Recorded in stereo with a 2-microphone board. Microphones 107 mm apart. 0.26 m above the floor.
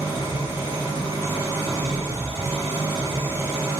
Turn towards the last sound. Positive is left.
turn(degrees=-35)  # may be behind; listen again after turning